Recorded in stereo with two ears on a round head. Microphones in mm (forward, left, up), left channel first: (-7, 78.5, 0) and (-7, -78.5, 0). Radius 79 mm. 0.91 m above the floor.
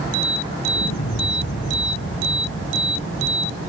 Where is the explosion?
75° left (ahead or behind).